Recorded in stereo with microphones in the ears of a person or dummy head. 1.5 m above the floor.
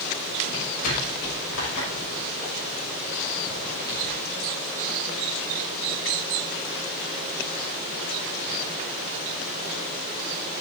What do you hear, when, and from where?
0.5 s footsteps: 75° left (ahead or behind), 6.5 m; by 4.2 s 55° left (ahead or behind), 5.5 m